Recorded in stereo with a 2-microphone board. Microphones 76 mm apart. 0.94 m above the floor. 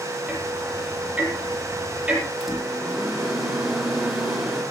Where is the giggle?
I don't hear a giggle.